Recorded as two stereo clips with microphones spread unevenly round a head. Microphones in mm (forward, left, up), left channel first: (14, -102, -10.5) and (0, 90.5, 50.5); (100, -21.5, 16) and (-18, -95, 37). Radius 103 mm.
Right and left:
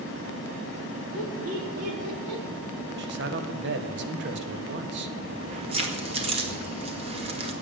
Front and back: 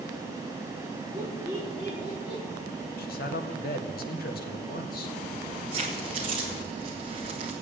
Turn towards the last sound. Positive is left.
turn(degrees=150)